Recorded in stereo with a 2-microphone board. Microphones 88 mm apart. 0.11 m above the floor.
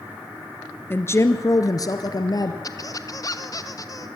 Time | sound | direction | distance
0.9 | a woman speaking | 25° left (ahead or behind) | 1.4 m
2.6 | a squeak | 40° left (ahead or behind) | 1.4 m